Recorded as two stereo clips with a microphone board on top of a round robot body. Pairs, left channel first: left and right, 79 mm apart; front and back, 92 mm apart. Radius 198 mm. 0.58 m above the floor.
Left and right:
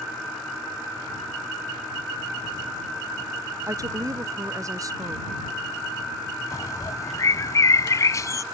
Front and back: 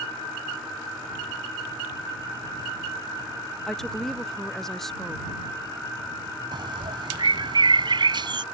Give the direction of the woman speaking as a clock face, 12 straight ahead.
3 o'clock.